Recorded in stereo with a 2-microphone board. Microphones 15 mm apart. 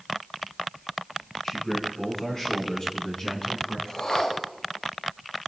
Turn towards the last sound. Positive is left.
turn(degrees=75)  # may be behind; listen again after turning